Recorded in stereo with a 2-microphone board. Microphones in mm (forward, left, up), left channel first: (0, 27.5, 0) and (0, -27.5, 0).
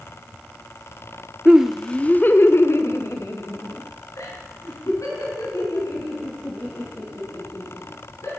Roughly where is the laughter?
Centre.